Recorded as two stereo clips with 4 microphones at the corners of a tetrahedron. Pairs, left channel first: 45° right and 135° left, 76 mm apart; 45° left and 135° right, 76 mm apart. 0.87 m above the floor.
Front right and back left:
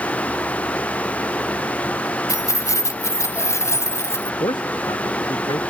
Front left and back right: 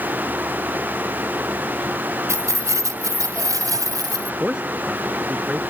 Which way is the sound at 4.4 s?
55° right.